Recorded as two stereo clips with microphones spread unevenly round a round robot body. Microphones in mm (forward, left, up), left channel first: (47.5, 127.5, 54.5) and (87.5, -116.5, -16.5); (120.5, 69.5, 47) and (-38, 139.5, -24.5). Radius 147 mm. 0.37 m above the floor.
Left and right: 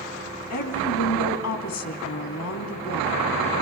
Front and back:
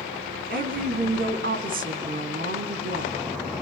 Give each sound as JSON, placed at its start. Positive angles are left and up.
{"t": 0.5, "sound": "a woman speaking", "azimuth_deg": 145, "distance_m": 3.0}